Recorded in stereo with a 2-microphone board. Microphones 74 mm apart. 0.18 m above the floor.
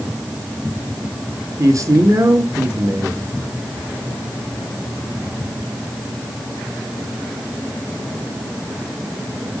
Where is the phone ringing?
No phone ringing in this recording.